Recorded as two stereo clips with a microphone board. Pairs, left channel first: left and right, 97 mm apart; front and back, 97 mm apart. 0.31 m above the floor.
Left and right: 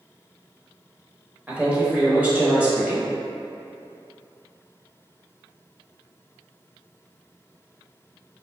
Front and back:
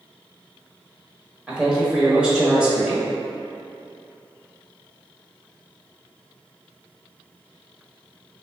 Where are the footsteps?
No footsteps in this recording.